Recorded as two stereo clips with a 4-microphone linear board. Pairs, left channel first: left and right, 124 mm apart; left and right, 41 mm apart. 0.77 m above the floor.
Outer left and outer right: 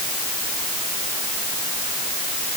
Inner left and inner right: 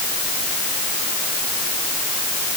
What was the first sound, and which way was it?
Only background noise.